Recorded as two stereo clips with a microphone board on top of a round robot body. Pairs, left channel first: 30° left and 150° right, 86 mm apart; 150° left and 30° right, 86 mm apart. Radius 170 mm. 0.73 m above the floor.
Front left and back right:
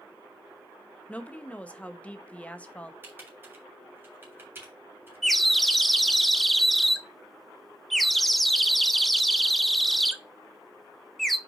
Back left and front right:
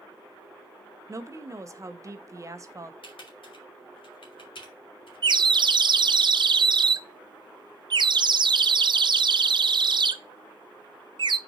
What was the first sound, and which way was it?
A woman speaking, 35° right.